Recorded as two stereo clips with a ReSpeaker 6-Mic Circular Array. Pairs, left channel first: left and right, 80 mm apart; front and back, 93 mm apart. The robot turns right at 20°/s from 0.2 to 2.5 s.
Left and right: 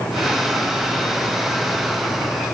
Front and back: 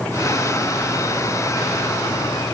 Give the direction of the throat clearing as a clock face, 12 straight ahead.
I don't hear throat clearing.